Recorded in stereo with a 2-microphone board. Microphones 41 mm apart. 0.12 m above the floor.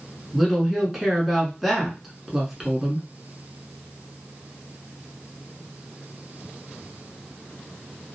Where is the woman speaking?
5° right (ahead or behind), 1.1 m.